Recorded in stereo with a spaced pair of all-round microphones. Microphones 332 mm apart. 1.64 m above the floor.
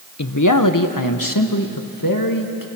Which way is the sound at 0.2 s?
55° left (ahead or behind).